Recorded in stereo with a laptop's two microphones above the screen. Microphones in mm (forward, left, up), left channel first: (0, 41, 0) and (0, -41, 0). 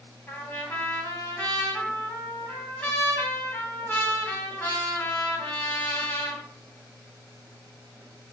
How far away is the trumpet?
About 2.5 m.